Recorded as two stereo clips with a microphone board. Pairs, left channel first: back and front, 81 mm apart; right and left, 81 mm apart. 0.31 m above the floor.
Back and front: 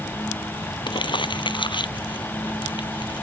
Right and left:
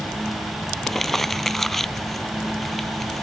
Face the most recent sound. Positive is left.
turn(degrees=-175)